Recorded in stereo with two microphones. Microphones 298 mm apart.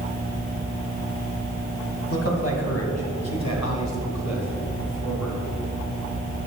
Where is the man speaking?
50° left (ahead or behind), 2.5 m; by 5.4 s 65° left (ahead or behind), 3.5 m.